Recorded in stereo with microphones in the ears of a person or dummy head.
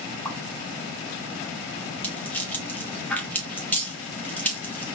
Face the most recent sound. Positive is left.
turn(degrees=15)  # may be behind; listen again after turning